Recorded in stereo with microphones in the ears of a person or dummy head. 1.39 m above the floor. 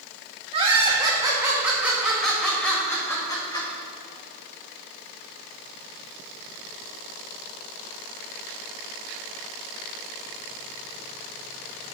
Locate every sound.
0.5 s laughter: 30° right (ahead or behind), 1.9 m; by 3.7 s 20° left (ahead or behind), 2 m